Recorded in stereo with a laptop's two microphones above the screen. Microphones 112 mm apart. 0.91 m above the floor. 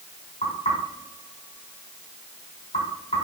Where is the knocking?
90° left, 4.5 m.